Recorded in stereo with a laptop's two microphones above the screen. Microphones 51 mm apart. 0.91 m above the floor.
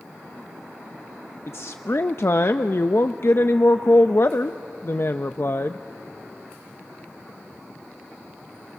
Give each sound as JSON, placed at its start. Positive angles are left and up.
{"t": 1.5, "sound": "a woman speaking", "side_deg": 55, "distance_m": 0.6}